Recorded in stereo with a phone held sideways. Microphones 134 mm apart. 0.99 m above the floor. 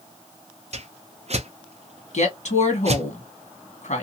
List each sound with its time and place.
0.7 s a whoosh: 50° right (ahead or behind), 0.5 m
2.1 s a woman speaking: 60° left (ahead or behind), 1.4 m